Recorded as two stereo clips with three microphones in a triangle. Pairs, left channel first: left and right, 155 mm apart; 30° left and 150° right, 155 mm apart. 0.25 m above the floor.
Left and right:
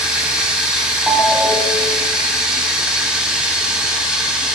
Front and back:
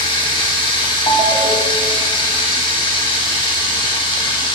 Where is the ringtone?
5° right, 0.8 m.